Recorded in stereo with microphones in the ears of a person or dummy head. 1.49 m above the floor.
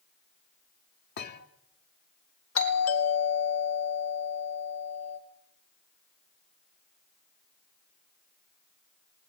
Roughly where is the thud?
Left.